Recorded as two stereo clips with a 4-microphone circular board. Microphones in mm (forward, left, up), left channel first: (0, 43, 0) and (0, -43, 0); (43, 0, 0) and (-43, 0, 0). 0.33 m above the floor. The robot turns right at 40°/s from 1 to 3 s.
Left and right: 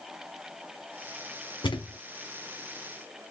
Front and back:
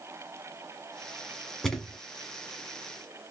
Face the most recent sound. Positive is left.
turn(degrees=140)